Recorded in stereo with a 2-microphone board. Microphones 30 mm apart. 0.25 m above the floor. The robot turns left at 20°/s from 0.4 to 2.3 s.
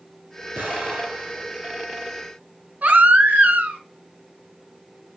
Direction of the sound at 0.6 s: 60° right (ahead or behind).